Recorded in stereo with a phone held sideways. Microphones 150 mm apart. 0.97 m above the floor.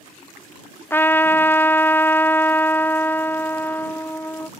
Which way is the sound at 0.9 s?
15° left (ahead or behind).